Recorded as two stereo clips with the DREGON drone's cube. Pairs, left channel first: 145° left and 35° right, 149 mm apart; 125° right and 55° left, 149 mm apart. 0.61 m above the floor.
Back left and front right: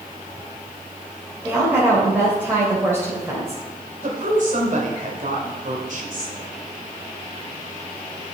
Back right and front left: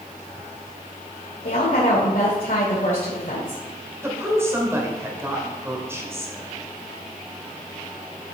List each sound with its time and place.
1.4 s a woman speaking: 110° right, 2 m
4.0 s a woman speaking: 15° right, 2 m